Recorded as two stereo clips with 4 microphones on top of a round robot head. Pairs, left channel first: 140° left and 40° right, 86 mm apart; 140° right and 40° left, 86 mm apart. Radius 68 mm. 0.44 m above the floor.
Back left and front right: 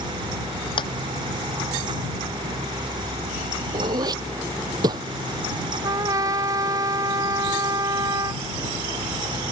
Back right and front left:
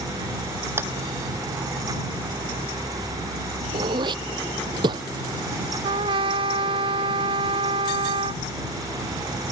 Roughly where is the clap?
Left.